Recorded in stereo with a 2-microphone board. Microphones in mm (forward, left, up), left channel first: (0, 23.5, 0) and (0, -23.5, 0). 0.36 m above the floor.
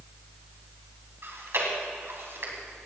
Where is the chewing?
60° right (ahead or behind), 2.5 m.